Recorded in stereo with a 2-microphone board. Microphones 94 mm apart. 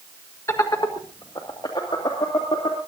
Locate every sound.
0.5 s laughter: 30° left (ahead or behind), 1.5 m; by 2.8 s 70° left (ahead or behind), 4 m